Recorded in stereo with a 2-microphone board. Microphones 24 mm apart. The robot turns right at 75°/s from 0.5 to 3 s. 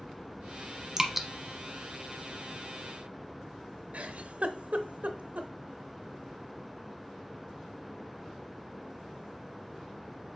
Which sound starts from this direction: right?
A giggle, at 3.9 s.